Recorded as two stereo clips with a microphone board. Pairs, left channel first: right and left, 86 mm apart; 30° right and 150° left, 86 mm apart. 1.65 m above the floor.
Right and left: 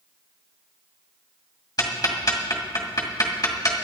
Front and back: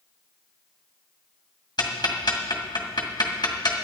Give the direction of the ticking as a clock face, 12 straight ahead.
2 o'clock.